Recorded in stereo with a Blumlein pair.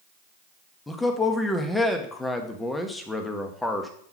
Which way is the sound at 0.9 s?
5° left.